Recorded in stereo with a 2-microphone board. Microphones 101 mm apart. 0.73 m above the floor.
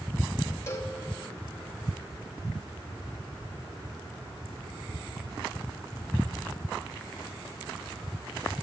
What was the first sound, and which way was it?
A cowbell, 30° left (ahead or behind).